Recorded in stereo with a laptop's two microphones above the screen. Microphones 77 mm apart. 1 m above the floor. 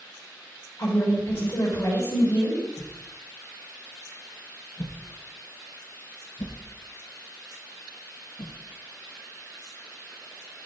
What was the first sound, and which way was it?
A woman speaking, 35° left (ahead or behind).